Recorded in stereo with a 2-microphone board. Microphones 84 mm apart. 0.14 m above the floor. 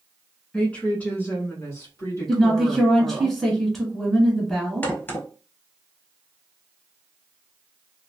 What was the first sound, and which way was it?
A woman speaking, 15° left (ahead or behind).